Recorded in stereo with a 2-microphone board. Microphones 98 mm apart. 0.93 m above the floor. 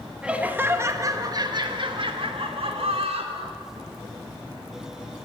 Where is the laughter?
10° right (ahead or behind), 1.0 m; by 3.6 s 75° right (ahead or behind), 2.0 m.